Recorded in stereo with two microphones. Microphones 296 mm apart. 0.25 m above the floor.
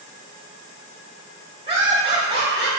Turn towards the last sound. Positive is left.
turn(degrees=-20)  # may be behind; listen again after turning